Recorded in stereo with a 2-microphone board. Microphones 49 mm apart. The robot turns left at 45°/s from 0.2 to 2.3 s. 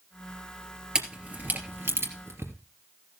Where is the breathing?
I don't hear breathing.